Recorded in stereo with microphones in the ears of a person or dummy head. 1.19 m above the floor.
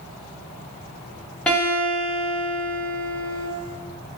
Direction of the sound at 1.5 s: 10° left (ahead or behind).